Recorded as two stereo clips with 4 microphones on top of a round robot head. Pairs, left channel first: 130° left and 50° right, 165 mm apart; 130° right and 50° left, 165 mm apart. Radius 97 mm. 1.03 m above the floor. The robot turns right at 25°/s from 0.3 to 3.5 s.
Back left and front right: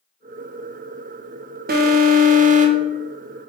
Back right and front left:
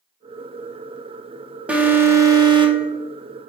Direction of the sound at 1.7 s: 35° right.